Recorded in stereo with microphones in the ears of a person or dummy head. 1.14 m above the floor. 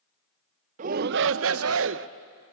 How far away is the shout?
About 0.7 m.